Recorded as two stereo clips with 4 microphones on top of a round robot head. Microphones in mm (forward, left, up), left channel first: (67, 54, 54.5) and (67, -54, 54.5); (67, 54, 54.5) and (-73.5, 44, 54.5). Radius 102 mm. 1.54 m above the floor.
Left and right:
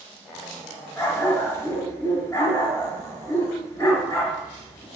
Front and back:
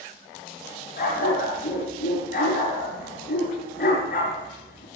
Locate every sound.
1.0 s a dog barking: 25° left, 7.5 m